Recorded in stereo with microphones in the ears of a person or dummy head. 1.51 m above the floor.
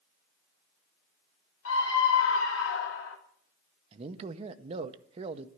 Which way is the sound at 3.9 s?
40° right (ahead or behind).